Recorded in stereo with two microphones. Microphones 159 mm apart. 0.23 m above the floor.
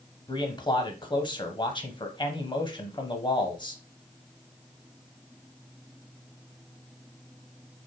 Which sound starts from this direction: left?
A man speaking, at 0.3 s.